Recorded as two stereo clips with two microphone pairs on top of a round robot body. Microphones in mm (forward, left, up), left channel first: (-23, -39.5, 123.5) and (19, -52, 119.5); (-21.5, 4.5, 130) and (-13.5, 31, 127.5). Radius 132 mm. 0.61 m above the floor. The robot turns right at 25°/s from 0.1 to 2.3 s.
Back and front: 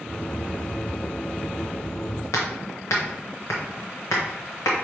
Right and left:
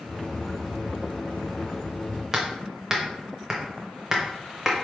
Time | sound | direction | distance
2.3 | hammering | 150° left | 0.7 m